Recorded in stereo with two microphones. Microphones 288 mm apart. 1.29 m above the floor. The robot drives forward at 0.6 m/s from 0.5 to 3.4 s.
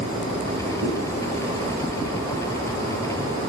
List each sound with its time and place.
0.8 s a zipper: 65° right (ahead or behind), 4.5 m